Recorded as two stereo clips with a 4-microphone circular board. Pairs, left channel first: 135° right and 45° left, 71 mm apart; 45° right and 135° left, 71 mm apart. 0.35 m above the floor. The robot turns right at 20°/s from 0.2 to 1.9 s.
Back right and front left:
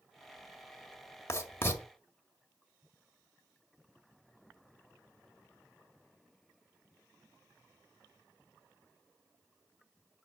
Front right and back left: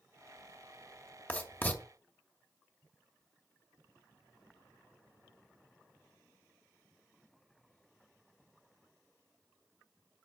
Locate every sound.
1.3 s writing: 105° right, 1.8 m; by 1.8 s 95° right, 1.8 m